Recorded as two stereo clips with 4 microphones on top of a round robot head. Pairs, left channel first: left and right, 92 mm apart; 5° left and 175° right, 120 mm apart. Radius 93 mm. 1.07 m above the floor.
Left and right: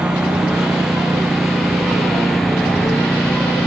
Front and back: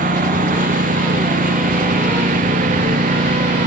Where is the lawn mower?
175° right; by 3.7 s 175° left.